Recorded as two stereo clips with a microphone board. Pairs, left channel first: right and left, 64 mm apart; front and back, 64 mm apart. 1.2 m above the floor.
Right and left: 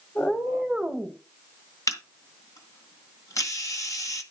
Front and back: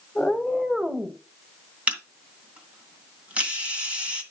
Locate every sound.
0.1 s a cat meowing: 55° right, 1.2 m; by 1.2 s 130° left, 1.2 m
1.9 s a camera shutter: 115° right, 2 m